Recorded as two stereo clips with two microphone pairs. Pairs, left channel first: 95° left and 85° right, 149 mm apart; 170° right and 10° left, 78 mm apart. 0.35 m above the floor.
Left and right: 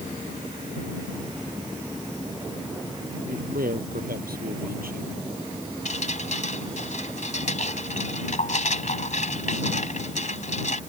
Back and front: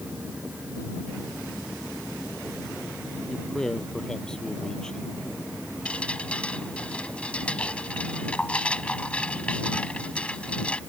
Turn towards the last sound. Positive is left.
turn(degrees=120)